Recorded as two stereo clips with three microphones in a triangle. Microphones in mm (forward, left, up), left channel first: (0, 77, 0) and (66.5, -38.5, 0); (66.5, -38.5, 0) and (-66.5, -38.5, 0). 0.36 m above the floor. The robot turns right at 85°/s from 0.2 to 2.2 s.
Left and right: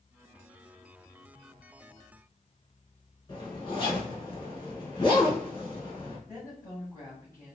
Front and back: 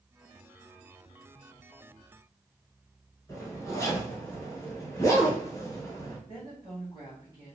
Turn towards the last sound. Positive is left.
turn(degrees=55)